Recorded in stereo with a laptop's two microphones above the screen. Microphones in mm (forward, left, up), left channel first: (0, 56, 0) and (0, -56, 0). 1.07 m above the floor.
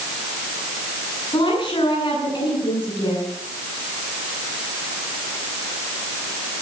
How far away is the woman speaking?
About 9 m.